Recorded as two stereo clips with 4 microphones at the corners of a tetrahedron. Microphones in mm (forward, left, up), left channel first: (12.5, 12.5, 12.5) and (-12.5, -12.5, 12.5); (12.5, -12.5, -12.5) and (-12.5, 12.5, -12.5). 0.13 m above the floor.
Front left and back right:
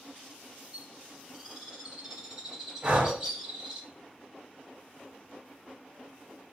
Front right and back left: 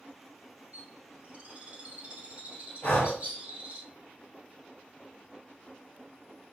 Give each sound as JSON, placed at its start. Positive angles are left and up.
{"t": 0.7, "sound": "a bird", "azimuth_deg": 165, "distance_m": 1.4}
{"t": 2.8, "sound": "breathing", "azimuth_deg": -80, "distance_m": 1.0}